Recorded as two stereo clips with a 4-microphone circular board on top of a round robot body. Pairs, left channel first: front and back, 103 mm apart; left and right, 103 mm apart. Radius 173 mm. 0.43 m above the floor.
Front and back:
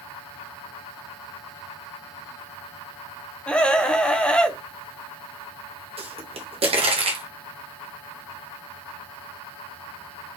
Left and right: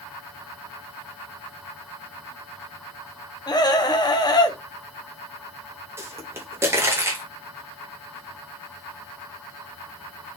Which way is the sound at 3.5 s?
75° left.